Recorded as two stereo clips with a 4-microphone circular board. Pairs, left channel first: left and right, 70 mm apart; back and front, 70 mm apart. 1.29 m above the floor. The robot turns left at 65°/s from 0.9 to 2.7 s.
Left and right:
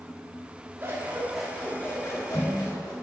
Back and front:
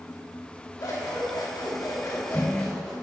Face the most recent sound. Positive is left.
turn(degrees=95)